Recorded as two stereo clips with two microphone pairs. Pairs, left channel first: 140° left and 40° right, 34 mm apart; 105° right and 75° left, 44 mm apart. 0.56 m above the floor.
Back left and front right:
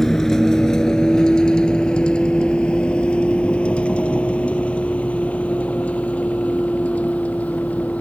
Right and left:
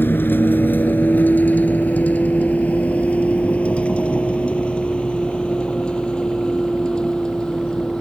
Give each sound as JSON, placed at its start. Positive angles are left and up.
{"t": 0.0, "sound": "a vehicle", "azimuth_deg": -140}